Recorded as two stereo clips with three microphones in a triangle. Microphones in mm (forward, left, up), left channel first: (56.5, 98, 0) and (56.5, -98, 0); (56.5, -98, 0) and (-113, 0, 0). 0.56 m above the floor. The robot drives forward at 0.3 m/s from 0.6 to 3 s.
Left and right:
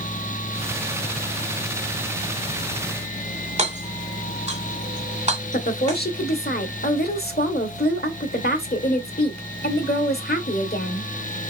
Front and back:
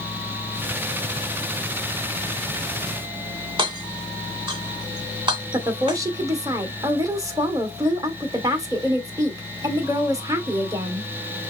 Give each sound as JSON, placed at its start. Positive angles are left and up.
{"t": 3.6, "sound": "hammering", "azimuth_deg": -145, "distance_m": 2.5}
{"t": 5.5, "sound": "a woman speaking", "azimuth_deg": 80, "distance_m": 1.6}